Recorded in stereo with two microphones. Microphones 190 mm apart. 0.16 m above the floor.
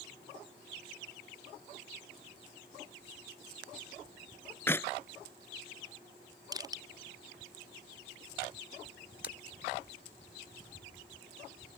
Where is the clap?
10° left (ahead or behind).